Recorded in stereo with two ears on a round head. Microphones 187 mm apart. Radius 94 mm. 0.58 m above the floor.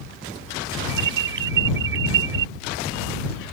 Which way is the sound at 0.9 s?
55° right (ahead or behind).